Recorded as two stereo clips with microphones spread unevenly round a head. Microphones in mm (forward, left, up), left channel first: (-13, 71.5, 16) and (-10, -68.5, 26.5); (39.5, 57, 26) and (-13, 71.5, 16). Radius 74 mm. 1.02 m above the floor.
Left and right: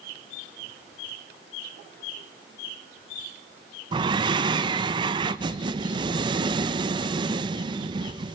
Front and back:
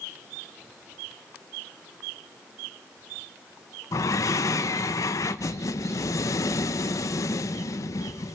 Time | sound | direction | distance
3.9 | breathing | 35° right | 0.8 m